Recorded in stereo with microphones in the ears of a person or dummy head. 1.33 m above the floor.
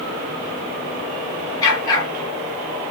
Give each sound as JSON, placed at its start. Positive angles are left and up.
{"t": 1.6, "sound": "a dog barking", "side_deg": 20, "distance_m": 7.0}